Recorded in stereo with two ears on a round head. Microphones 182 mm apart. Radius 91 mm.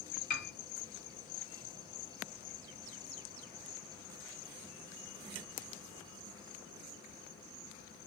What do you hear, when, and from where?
0.3 s a piano: 40° left (ahead or behind), 0.9 m